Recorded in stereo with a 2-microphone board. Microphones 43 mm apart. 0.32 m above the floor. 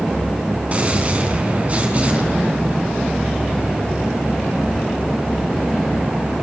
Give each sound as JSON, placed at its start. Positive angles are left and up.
{"t": 0.7, "sound": "a gunshot", "side_deg": -35, "distance_m": 3.5}